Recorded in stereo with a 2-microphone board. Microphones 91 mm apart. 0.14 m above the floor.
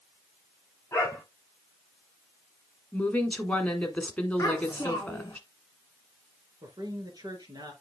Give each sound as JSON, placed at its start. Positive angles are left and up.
{"t": 0.9, "sound": "a dog barking", "side_deg": 20, "distance_m": 5.5}
{"t": 2.9, "sound": "a woman speaking", "side_deg": 15, "distance_m": 1.3}
{"t": 4.4, "sound": "a child speaking", "side_deg": 30, "distance_m": 4.5}
{"t": 6.6, "sound": "a man speaking", "side_deg": -45, "distance_m": 2.0}